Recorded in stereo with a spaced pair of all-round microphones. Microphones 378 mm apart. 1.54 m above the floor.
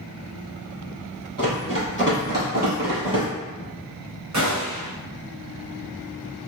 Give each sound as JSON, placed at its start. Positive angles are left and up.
{"t": 1.4, "sound": "running footsteps", "side_deg": -40, "distance_m": 1.9}
{"t": 4.3, "sound": "a gunshot", "side_deg": -50, "distance_m": 0.8}